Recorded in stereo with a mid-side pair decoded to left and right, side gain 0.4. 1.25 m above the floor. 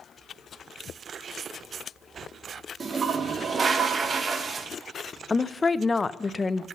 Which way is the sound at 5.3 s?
30° left.